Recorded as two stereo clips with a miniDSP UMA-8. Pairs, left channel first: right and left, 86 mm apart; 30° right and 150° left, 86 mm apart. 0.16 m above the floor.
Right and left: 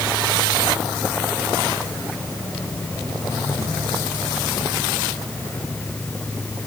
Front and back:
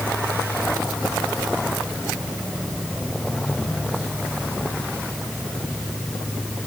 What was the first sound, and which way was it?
Only background noise.